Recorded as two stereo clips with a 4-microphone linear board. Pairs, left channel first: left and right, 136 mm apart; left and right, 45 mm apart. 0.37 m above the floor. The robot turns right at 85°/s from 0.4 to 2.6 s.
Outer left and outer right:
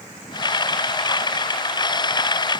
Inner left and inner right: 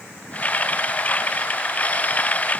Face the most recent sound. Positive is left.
No sound to turn to.